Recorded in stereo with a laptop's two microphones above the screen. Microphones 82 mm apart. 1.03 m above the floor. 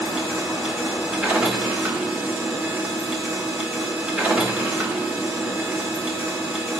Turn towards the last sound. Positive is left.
turn(degrees=-15)  # may be behind; listen again after turning